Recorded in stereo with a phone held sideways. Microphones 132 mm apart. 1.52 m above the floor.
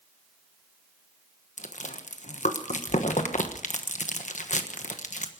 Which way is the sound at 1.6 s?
65° left (ahead or behind).